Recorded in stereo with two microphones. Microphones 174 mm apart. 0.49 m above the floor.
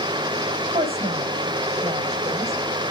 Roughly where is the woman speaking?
Right.